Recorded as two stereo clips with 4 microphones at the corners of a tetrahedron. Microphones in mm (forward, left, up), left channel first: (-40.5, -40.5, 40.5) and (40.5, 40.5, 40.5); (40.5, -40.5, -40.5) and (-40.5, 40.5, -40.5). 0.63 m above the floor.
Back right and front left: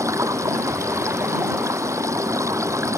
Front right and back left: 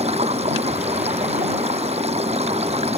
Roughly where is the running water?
Left.